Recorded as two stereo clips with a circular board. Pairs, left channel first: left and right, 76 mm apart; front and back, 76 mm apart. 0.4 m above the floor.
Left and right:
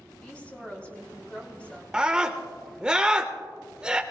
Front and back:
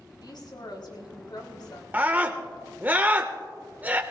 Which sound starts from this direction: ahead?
A woman speaking, at 0.2 s.